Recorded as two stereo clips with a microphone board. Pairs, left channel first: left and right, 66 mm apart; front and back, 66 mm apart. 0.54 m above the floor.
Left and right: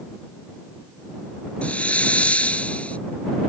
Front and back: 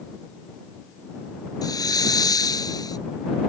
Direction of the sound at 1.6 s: 20° left.